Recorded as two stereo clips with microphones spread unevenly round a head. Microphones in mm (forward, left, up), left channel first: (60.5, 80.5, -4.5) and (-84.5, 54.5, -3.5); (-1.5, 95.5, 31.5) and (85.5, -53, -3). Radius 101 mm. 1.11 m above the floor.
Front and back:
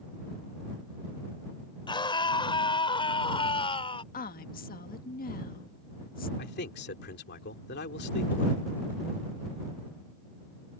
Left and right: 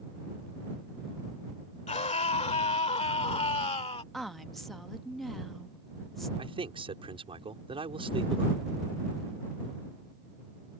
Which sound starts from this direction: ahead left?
A woman speaking, at 4.1 s.